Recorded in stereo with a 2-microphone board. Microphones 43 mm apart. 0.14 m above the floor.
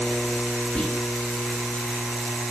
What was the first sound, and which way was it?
Whispering, 25° left (ahead or behind).